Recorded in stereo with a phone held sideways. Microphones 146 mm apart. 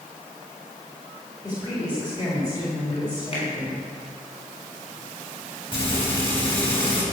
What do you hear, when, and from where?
1.4 s a woman speaking: 30° left (ahead or behind), 3.5 m
3.3 s a finger snap: 40° left (ahead or behind), 6 m
5.7 s frying: 40° left (ahead or behind), 5 m